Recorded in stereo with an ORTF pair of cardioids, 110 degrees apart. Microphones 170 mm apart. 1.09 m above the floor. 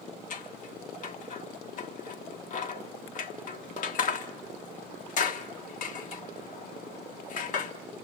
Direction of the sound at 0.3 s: 50° left.